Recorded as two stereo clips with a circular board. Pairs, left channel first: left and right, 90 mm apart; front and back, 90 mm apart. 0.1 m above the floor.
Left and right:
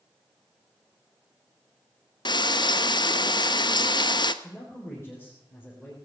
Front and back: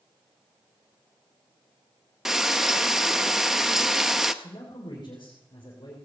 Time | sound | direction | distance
2.2 | frying | 95° left | 0.6 m
4.4 | a man speaking | 30° left | 3.5 m